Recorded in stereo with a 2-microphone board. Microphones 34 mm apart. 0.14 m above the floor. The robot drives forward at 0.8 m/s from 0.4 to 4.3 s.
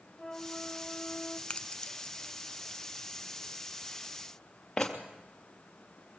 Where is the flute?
10° left (ahead or behind), 3 m; by 1.4 s 15° left (ahead or behind), 2.5 m.